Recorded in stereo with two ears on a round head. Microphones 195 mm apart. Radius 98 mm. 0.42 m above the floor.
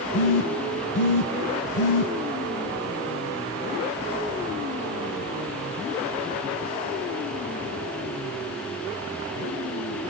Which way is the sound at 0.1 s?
55° left (ahead or behind).